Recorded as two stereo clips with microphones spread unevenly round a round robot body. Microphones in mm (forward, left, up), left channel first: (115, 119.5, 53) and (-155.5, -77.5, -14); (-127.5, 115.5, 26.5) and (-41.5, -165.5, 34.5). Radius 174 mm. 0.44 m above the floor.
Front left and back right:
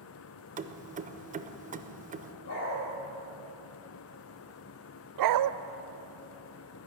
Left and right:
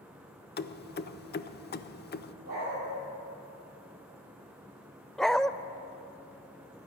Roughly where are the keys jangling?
Behind.